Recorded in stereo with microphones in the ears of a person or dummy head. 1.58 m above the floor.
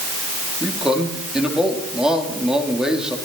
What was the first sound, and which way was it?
A man speaking, 5° right (ahead or behind).